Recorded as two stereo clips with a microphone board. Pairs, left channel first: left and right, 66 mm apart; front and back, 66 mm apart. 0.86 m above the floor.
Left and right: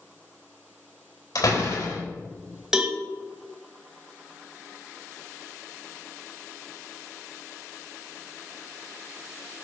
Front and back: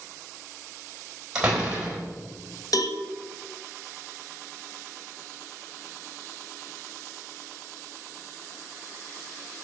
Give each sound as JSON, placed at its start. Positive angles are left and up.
{"t": 1.4, "sound": "a door slam", "azimuth_deg": 105, "distance_m": 4.0}
{"t": 2.7, "sound": "a cowbell", "azimuth_deg": -10, "distance_m": 1.3}